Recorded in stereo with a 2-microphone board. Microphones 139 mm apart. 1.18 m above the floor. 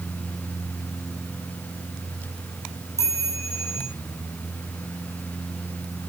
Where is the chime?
20° left (ahead or behind), 6 m.